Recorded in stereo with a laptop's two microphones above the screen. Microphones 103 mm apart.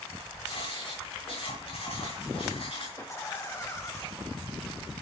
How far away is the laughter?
About 1.7 m.